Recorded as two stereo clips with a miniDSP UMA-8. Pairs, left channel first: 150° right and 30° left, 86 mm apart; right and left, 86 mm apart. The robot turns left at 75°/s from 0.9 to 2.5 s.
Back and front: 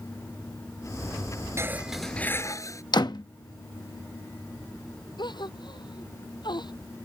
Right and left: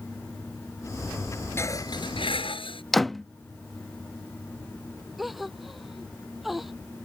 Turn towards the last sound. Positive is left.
turn(degrees=180)